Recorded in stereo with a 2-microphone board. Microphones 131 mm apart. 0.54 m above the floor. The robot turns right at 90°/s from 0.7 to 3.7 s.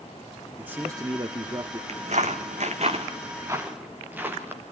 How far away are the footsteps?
About 1.4 m.